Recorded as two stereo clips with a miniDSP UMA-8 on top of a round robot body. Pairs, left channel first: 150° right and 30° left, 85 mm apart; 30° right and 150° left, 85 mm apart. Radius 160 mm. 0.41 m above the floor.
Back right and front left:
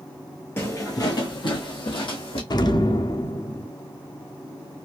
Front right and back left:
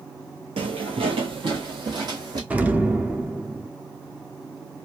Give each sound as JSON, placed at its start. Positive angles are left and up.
{"t": 0.6, "sound": "footsteps", "azimuth_deg": 145, "distance_m": 0.8}
{"t": 2.5, "sound": "an explosion", "azimuth_deg": -140, "distance_m": 0.8}